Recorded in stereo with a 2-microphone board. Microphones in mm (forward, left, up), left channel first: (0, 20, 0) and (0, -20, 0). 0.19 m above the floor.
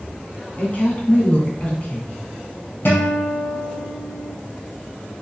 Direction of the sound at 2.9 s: 65° left (ahead or behind).